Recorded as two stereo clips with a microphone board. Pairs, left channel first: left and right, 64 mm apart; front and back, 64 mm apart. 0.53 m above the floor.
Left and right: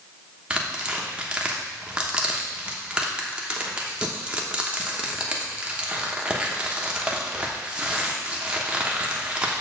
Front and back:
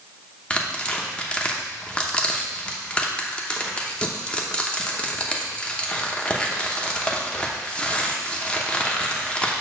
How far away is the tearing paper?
About 0.9 m.